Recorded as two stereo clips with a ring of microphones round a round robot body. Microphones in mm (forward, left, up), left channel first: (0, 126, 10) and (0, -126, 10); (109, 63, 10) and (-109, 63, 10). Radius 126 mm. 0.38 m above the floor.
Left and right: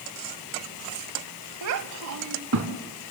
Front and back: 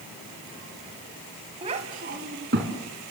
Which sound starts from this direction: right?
A child speaking, at 1.6 s.